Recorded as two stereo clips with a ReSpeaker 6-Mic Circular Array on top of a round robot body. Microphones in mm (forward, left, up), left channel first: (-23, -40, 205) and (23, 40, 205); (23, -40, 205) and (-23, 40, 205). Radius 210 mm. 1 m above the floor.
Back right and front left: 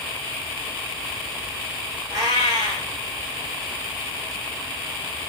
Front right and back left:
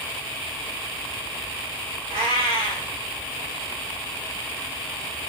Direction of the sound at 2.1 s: 110° left.